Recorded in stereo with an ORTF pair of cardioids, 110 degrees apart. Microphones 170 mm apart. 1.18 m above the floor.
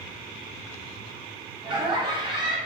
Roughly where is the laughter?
Ahead right.